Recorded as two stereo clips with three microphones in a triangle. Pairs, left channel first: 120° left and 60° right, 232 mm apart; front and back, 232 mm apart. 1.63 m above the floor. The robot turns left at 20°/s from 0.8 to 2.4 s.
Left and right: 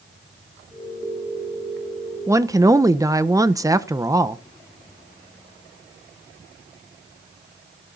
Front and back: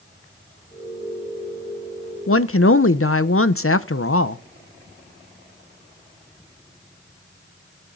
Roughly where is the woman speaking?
Ahead.